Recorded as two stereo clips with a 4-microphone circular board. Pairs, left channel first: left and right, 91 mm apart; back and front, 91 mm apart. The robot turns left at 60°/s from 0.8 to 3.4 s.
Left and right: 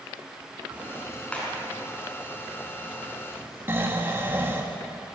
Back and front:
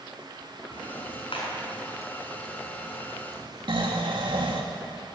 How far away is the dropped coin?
No dropped coin in this recording.